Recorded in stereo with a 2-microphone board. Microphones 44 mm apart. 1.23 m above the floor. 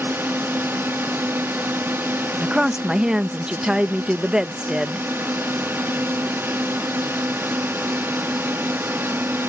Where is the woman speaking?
20° right (ahead or behind).